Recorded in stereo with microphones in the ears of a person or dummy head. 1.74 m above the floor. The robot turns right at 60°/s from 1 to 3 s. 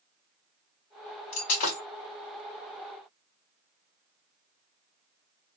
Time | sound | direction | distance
1.3 | breaking glass | 45° left (ahead or behind) | 1.5 m